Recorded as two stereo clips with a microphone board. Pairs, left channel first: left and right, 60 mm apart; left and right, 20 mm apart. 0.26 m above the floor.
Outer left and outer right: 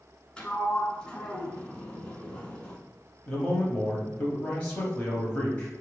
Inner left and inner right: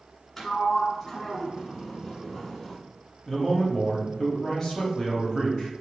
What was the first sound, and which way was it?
A sliding door, 15° left (ahead or behind).